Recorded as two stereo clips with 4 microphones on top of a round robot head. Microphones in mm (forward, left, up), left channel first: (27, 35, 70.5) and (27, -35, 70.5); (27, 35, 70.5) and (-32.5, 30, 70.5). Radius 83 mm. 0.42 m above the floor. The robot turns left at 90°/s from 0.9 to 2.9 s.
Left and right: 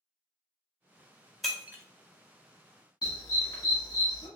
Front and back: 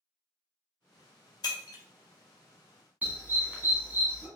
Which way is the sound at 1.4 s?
Straight ahead.